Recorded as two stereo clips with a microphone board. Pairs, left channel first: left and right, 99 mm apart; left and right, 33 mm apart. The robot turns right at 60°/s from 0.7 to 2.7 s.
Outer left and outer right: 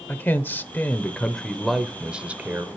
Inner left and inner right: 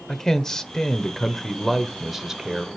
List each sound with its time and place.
0.1 s a man speaking: 20° left (ahead or behind), 0.9 m; by 2.7 s 20° right (ahead or behind), 0.9 m